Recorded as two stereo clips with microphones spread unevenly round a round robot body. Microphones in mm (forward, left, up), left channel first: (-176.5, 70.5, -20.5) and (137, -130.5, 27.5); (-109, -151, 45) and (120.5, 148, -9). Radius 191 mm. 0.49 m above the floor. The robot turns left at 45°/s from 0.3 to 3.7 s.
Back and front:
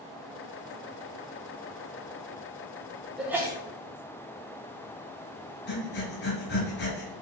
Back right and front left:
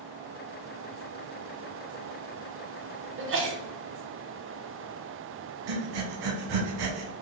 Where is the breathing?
85° left, 1.0 m.